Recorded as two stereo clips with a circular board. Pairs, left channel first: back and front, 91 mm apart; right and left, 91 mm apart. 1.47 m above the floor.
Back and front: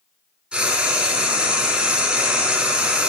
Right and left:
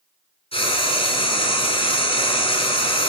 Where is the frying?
75° right, 5 m.